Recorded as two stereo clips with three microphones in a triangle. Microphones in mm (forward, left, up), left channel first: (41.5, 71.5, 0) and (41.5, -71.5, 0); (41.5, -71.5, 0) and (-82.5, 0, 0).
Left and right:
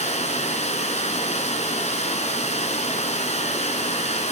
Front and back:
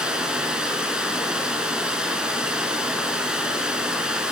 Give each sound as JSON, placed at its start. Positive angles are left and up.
{"t": 0.0, "sound": "running water", "azimuth_deg": 65, "distance_m": 2.0}